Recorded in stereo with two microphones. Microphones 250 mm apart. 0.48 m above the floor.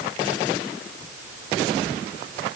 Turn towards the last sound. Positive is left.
No sound to turn to.